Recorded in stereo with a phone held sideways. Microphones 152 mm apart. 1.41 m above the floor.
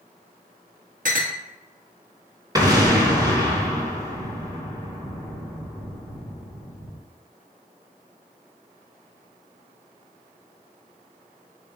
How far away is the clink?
About 1.2 m.